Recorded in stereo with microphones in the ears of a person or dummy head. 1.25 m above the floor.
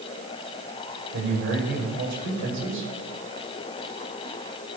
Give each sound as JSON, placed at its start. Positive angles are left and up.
{"t": 1.1, "sound": "a man speaking", "side_deg": -60, "distance_m": 6.5}